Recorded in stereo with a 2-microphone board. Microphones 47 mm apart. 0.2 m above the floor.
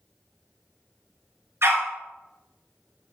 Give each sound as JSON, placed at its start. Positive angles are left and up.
{"t": 1.6, "sound": "a dog barking", "side_deg": -65, "distance_m": 1.2}